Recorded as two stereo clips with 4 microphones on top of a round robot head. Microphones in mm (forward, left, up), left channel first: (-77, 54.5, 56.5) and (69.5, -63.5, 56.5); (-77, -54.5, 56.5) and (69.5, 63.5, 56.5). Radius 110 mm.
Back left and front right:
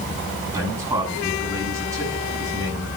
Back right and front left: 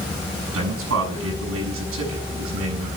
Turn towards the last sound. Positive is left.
turn(degrees=35)